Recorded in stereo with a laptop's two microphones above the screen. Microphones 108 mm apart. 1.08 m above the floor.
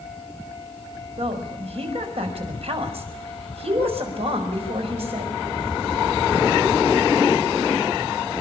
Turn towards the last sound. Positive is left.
turn(degrees=-65)  # may be behind; listen again after turning